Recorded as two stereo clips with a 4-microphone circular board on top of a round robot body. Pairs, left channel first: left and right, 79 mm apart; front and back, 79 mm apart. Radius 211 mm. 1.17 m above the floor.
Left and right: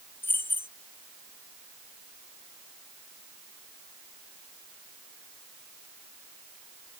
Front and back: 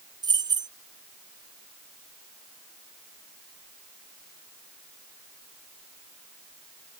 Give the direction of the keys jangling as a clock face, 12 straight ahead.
7 o'clock.